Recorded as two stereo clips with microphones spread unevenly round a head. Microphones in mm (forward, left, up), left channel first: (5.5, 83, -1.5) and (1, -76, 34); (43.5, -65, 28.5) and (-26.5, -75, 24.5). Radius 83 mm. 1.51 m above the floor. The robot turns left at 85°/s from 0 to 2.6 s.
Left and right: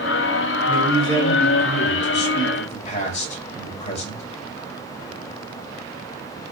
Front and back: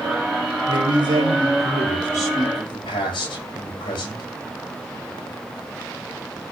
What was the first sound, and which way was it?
A man speaking, 155° right.